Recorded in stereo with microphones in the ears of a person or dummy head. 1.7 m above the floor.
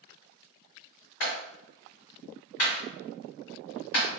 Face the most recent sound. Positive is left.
turn(degrees=60)  # may be behind; listen again after turning